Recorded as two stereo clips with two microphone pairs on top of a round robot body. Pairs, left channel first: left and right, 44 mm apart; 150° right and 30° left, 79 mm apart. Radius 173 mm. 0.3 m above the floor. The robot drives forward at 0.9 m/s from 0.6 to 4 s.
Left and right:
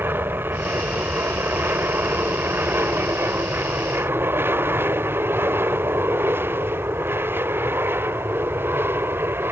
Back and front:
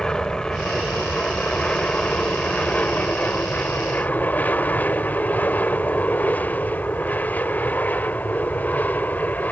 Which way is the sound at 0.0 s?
65° right.